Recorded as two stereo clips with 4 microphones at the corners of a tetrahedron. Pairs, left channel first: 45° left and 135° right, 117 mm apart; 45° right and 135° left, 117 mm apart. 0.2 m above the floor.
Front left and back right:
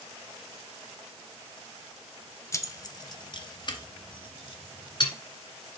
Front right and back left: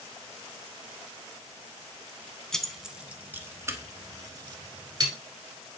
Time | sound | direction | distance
2.5 | keys jangling | 30° left | 0.7 m